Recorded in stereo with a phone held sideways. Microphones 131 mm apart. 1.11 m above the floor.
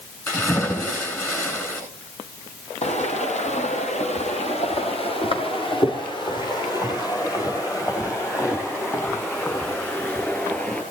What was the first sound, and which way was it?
A splash, 20° left (ahead or behind).